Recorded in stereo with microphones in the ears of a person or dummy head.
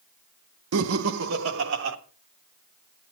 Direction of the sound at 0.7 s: 80° right.